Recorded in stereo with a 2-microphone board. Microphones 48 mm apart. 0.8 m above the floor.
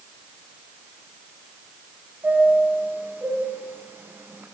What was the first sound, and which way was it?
A chime, 40° right (ahead or behind).